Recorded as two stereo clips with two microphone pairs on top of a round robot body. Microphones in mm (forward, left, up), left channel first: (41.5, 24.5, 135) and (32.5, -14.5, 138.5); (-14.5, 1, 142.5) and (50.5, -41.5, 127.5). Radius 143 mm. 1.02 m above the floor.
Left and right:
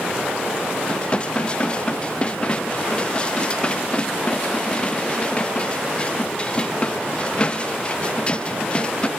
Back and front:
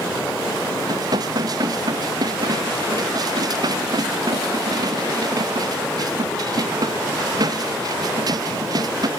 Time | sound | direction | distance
0.9 | dishes clattering | 10° left | ?